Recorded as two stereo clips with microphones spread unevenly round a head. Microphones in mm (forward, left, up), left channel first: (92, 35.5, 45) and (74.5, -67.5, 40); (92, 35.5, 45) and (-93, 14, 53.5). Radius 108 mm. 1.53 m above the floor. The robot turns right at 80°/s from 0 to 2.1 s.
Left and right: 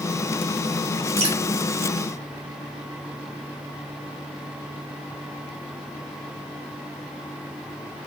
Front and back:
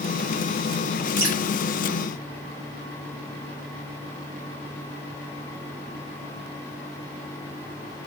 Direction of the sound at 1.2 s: 100° right.